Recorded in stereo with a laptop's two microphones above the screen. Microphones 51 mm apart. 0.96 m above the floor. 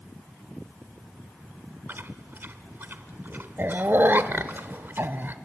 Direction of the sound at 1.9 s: 40° right (ahead or behind).